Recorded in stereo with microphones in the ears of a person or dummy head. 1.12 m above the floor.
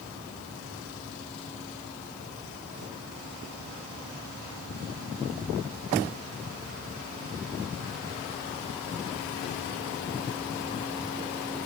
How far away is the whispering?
No whispering in this recording.